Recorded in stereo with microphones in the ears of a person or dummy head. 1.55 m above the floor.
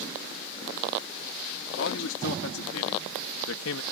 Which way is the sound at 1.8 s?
80° left.